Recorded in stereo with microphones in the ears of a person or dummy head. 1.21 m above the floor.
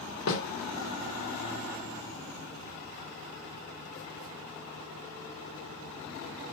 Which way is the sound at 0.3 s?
70° left (ahead or behind).